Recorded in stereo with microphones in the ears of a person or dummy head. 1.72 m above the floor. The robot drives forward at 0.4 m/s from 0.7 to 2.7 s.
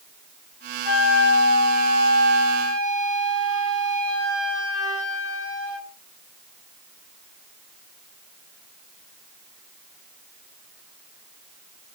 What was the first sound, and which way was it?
A flute, 80° left.